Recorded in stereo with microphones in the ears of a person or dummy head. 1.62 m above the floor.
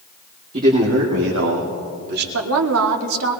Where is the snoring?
I don't hear snoring.